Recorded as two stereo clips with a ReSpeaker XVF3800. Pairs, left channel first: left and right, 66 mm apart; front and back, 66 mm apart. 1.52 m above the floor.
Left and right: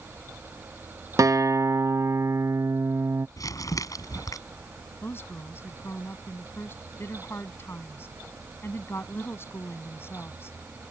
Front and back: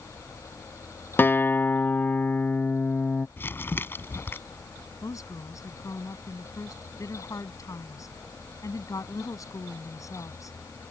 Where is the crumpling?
60° left.